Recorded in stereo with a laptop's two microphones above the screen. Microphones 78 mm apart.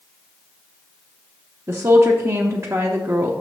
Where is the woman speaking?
35° right (ahead or behind), 0.8 m.